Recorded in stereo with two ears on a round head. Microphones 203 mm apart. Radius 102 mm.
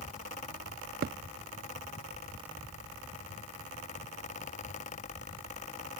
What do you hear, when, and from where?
1.0 s a thud: 40° right (ahead or behind)